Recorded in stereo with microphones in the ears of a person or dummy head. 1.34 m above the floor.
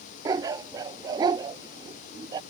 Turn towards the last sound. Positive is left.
turn(degrees=-20)  # may be behind; listen again after turning